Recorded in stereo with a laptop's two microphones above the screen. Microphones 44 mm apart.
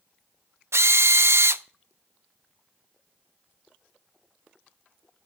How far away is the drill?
About 0.7 m.